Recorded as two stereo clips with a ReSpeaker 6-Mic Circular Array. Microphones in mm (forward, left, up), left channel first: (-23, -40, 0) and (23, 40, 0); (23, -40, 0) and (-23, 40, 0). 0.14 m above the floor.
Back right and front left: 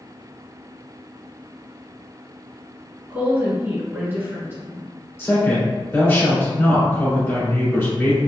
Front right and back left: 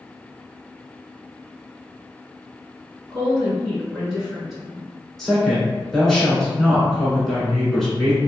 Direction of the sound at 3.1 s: 45° left.